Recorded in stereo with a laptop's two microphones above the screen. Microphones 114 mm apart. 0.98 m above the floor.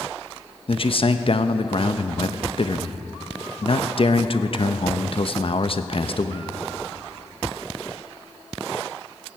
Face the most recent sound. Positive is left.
turn(degrees=50)  # may be behind; listen again after turning